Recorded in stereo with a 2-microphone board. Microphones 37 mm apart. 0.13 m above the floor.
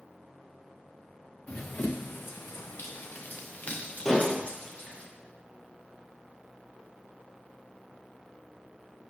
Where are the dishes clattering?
15° left (ahead or behind), 2 m.